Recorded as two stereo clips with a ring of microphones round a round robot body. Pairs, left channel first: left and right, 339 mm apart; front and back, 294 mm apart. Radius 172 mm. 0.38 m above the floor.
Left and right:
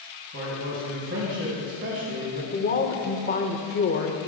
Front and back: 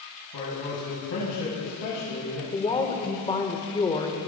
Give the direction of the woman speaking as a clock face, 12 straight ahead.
10 o'clock.